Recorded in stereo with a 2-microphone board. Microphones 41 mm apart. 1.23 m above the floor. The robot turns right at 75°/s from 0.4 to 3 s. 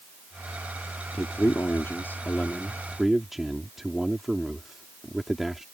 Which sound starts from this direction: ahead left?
A man speaking, at 1.1 s.